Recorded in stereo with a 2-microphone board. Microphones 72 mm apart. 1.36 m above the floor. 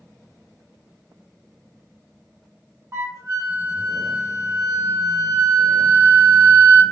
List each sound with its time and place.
2.9 s a flute: 40° right (ahead or behind), 0.9 m